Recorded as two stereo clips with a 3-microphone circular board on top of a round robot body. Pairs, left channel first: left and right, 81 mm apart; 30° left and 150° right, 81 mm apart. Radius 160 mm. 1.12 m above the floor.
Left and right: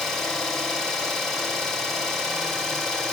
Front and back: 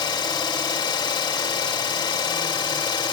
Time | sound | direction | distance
0.0 | an engine running | 5° left | 3.5 m